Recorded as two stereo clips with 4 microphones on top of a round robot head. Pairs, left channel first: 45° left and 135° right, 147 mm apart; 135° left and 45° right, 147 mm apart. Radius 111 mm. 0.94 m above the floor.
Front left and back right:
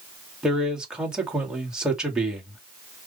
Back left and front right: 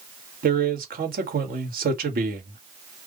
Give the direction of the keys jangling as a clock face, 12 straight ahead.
I don't hear keys jangling.